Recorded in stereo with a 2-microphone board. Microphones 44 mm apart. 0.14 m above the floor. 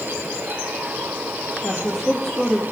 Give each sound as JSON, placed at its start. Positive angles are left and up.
{"t": 1.6, "sound": "a woman speaking", "side_deg": 0, "distance_m": 3.5}